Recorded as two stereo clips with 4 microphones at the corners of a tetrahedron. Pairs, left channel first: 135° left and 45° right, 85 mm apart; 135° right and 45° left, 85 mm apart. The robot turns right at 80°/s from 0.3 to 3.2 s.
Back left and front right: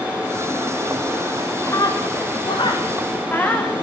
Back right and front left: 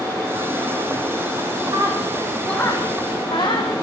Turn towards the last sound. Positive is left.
turn(degrees=-155)